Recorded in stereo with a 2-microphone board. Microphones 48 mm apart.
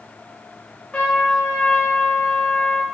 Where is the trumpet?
25° left (ahead or behind), 0.8 m.